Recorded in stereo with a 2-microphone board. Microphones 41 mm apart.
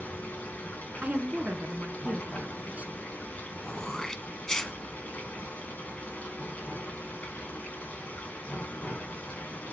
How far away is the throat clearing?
About 0.7 m.